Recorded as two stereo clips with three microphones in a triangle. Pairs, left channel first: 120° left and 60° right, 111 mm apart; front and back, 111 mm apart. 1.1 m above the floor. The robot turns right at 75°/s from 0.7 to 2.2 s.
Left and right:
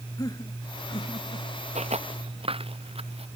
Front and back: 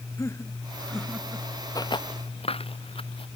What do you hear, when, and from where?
0.2 s laughter: 65° left; by 1.5 s 120° left
1.8 s footsteps: 60° right; by 3.3 s 35° right